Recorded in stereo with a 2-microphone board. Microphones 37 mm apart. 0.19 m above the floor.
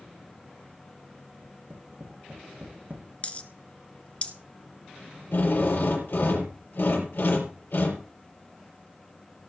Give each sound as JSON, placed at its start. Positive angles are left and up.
{"t": 1.4, "sound": "tapping", "side_deg": -45, "distance_m": 6.5}
{"t": 3.2, "sound": "a dropped coin", "side_deg": 35, "distance_m": 1.2}
{"t": 5.3, "sound": "a drill", "side_deg": 70, "distance_m": 5.0}